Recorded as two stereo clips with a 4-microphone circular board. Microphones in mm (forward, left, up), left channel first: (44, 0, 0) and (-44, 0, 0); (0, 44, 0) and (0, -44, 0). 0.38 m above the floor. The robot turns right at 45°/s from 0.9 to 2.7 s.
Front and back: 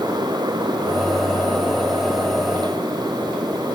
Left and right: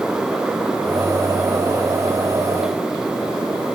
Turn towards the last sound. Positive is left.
No sound to turn to.